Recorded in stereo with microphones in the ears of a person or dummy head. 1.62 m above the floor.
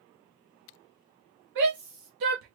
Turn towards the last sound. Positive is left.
turn(degrees=-40)  # may be behind; listen again after turning